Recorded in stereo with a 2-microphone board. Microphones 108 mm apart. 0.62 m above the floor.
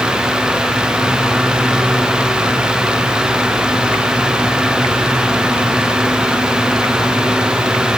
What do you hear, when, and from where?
Only background noise.